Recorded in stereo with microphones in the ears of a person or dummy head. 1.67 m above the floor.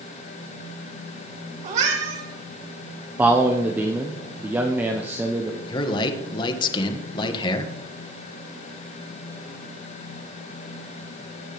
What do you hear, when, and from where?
1.6 s a cat meowing: 45° right (ahead or behind), 3.5 m
3.2 s a man speaking: 10° right (ahead or behind), 1.0 m
5.7 s a man speaking: 30° left (ahead or behind), 1.7 m